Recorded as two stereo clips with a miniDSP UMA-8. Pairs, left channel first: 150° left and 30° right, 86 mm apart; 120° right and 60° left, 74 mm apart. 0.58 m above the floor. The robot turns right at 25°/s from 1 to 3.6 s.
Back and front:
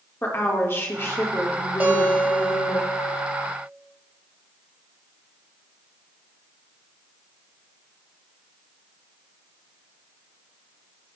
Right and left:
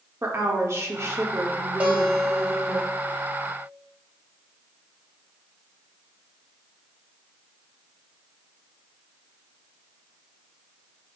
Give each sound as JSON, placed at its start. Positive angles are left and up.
{"t": 0.2, "sound": "a woman speaking", "azimuth_deg": 100, "distance_m": 1.3}
{"t": 1.8, "sound": "a guitar", "azimuth_deg": 15, "distance_m": 1.2}